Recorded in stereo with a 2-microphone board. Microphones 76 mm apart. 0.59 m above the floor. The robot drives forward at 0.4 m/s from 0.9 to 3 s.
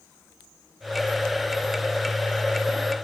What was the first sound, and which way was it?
Only background noise.